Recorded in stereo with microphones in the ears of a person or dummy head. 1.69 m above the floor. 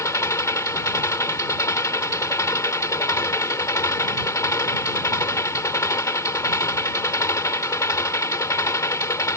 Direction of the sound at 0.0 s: 15° left (ahead or behind).